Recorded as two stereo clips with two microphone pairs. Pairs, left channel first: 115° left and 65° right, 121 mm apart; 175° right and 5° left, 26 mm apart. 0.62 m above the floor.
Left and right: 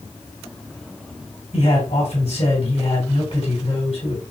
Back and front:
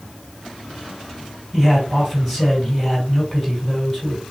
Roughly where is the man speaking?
Left.